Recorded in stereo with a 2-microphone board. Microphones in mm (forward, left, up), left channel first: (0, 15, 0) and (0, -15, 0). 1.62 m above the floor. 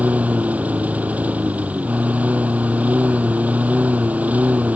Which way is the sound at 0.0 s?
55° right (ahead or behind).